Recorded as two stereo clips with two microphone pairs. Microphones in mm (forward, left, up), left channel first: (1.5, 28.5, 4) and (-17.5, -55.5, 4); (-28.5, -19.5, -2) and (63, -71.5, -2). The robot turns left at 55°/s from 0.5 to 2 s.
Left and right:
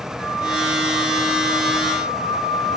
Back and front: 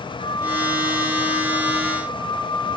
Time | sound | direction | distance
0.2 | a flute | 155° left | 3.5 m